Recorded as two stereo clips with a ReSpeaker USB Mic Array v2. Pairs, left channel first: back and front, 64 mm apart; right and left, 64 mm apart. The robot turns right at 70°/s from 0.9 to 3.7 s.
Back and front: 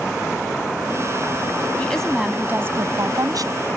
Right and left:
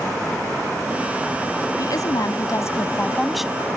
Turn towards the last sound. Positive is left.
turn(degrees=25)